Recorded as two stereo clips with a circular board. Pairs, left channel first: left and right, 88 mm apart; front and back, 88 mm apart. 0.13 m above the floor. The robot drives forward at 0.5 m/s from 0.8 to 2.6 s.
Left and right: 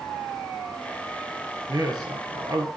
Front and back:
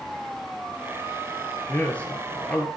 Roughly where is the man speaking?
Ahead right.